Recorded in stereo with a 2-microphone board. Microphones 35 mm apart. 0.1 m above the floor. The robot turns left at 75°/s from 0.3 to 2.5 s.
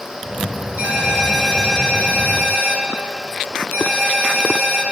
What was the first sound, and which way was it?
A ringtone, 130° right.